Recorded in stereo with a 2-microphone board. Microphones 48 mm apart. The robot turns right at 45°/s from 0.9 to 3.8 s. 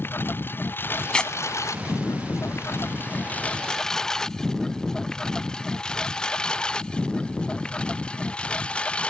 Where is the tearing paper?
20° left (ahead or behind); by 1.3 s 15° left (ahead or behind).